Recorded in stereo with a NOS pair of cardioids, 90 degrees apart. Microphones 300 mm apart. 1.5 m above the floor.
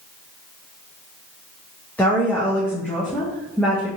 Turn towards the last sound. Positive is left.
turn(degrees=5)